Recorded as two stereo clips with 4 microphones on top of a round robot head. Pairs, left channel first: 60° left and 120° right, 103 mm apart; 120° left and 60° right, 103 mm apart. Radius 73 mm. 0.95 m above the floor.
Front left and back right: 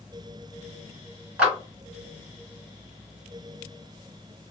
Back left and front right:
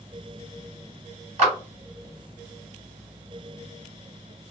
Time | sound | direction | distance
1.4 | a clap | 45° right | 2 m